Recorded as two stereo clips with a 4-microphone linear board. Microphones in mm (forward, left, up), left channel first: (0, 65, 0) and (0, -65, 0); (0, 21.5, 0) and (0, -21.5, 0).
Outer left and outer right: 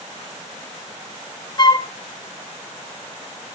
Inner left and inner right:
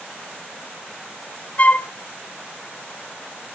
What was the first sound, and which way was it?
A flute, 35° left (ahead or behind).